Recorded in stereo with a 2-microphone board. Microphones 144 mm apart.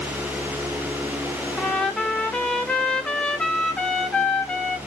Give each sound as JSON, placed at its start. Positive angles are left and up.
{"t": 1.6, "sound": "a trumpet", "side_deg": 5, "distance_m": 0.8}